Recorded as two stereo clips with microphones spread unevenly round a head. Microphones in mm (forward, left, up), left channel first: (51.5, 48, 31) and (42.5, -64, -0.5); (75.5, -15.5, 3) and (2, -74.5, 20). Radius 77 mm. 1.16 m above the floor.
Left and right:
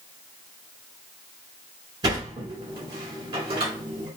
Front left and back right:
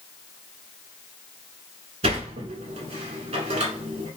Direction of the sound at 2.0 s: 140° right.